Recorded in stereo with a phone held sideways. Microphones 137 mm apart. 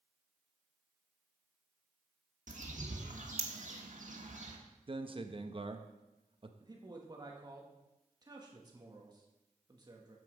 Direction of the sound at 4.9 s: 40° right (ahead or behind).